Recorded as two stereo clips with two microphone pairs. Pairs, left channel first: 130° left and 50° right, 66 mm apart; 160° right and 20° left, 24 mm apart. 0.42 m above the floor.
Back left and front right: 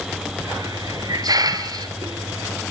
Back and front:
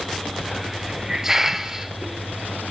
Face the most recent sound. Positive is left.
turn(degrees=-45)